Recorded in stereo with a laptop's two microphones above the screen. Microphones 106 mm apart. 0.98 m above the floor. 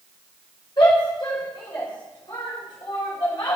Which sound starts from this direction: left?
A shout, at 0.8 s.